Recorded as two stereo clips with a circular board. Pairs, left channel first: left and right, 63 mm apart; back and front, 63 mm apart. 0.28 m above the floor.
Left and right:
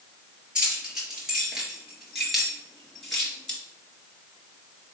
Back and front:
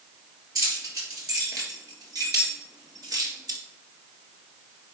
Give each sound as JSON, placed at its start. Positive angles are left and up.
{"t": 0.6, "sound": "keys jangling", "azimuth_deg": -15, "distance_m": 4.0}